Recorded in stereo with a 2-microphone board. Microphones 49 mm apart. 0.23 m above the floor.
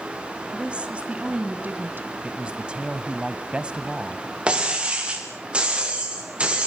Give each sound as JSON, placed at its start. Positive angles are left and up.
{"t": 0.5, "sound": "a woman speaking", "side_deg": -20, "distance_m": 2.0}
{"t": 2.2, "sound": "a man speaking", "side_deg": -20, "distance_m": 1.0}
{"t": 4.5, "sound": "breaking glass", "side_deg": -20, "distance_m": 6.0}